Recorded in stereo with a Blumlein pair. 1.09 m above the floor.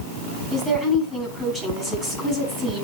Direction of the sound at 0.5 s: Straight ahead.